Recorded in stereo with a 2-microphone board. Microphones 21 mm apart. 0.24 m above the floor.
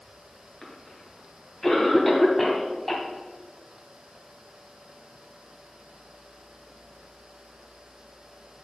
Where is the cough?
15° left (ahead or behind), 1.6 m.